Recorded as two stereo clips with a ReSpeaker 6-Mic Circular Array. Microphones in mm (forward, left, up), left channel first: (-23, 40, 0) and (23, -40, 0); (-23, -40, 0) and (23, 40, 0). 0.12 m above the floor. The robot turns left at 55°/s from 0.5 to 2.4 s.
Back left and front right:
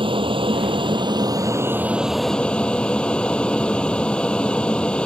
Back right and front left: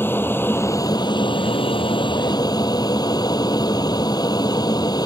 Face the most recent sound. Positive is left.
turn(degrees=-160)